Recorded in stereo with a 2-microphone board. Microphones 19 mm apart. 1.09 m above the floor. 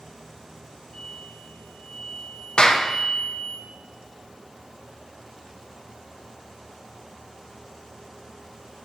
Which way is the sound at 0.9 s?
35° left (ahead or behind).